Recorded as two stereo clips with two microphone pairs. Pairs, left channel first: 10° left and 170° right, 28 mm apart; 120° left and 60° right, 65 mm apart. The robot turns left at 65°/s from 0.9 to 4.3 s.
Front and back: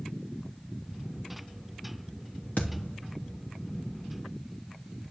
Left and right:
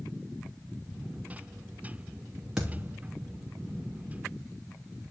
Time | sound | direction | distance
2.6 | a thud | 25° left | 3 m